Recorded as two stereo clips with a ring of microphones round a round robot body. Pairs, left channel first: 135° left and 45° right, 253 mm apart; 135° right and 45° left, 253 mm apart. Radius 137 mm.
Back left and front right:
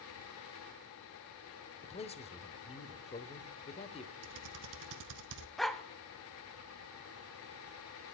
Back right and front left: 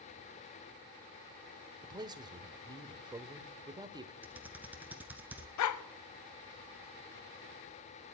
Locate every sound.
1.8 s a man speaking: 100° left, 1.1 m
4.2 s typing on a keyboard: 40° right, 1.0 m
5.6 s a dog barking: 135° right, 0.8 m